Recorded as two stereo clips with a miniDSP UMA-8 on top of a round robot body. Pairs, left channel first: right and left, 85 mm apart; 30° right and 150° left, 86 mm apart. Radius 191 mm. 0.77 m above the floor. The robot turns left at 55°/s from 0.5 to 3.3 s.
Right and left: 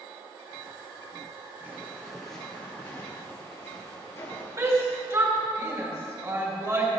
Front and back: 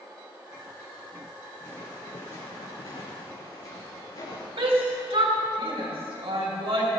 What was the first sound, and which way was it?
Footsteps, 30° left.